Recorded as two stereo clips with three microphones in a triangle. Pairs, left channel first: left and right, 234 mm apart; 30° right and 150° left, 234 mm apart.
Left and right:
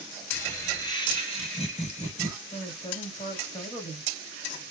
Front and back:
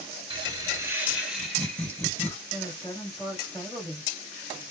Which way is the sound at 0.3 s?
150° left.